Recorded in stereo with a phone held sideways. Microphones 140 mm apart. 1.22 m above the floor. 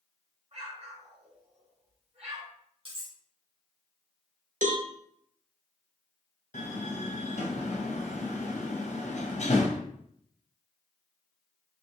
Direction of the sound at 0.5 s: 45° right (ahead or behind).